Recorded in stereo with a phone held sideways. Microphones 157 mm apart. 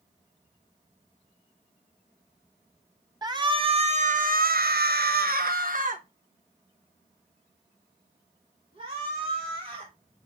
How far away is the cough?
I don't hear a cough.